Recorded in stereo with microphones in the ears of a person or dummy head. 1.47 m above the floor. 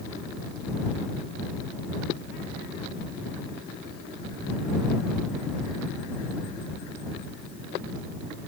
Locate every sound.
Only background noise.